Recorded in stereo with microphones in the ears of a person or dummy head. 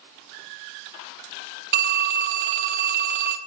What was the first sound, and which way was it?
A phone ringing, 45° right (ahead or behind).